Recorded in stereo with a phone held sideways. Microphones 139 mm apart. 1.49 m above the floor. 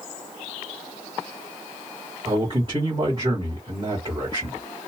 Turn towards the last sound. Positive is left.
turn(degrees=-40)  # may be behind; listen again after turning